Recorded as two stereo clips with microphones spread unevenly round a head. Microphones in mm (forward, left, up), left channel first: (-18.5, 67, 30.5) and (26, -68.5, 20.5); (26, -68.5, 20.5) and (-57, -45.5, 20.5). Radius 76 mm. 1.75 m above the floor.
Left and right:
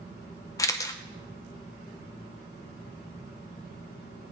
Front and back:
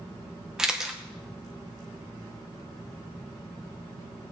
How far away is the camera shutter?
About 0.8 m.